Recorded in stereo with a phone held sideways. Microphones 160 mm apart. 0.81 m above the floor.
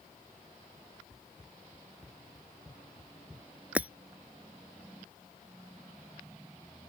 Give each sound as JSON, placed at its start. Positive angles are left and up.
{"t": 1.1, "sound": "running footsteps", "side_deg": -5}
{"t": 3.8, "sound": "breaking glass", "side_deg": -10}